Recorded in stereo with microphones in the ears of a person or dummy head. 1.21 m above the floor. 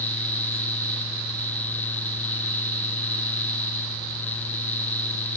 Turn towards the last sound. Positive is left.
No sound to turn to.